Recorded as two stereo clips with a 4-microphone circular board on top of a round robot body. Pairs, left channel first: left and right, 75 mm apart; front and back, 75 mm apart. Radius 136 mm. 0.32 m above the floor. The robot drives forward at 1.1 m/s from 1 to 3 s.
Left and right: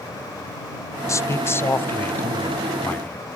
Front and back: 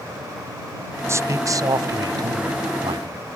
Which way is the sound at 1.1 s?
135° left.